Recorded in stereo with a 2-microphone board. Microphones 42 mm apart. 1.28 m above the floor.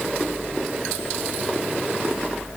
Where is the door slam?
I don't hear a door slam.